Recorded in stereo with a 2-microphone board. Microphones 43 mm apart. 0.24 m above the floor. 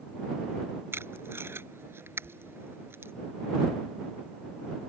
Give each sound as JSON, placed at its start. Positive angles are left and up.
{"t": 0.9, "sound": "tape being pulled", "side_deg": -70}
{"t": 2.2, "sound": "knocking", "side_deg": 25}